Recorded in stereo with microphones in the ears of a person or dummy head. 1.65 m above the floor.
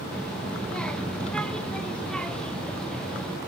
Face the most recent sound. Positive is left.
turn(degrees=5)  # may be behind; listen again after turning